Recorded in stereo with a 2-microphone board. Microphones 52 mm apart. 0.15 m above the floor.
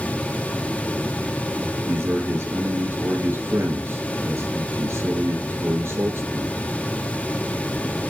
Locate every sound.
1.9 s a man speaking: 60° right (ahead or behind), 2.5 m